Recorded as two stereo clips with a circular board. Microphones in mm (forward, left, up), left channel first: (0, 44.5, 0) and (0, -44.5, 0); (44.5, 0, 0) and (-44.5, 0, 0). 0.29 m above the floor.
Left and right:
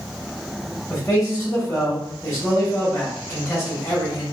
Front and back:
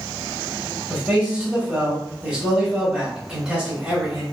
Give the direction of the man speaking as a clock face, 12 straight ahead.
8 o'clock.